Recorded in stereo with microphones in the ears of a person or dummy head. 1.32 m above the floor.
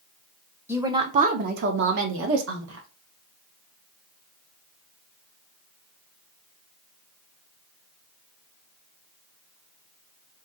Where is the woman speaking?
10° right (ahead or behind), 0.6 m; by 2.9 s 80° right, 1.4 m.